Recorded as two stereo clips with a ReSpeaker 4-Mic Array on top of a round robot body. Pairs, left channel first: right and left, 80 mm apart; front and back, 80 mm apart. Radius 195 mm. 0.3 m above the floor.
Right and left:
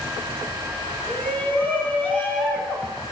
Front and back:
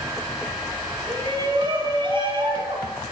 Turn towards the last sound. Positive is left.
turn(degrees=-170)